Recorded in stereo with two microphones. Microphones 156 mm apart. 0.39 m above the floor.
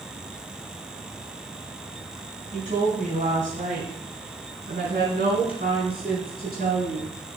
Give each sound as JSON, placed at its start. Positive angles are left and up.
{"t": 2.5, "sound": "a woman speaking", "side_deg": -50, "distance_m": 3.5}